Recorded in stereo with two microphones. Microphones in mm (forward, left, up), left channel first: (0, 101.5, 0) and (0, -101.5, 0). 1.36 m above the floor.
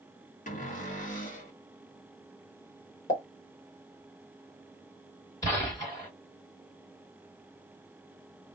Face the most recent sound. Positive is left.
turn(degrees=15)  # may be behind; listen again after turning